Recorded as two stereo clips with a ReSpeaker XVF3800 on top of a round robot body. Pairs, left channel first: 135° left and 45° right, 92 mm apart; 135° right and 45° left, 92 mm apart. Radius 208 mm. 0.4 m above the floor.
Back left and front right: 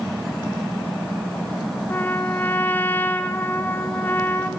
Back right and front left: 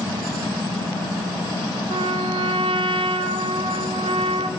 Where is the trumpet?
65° left, 0.6 m.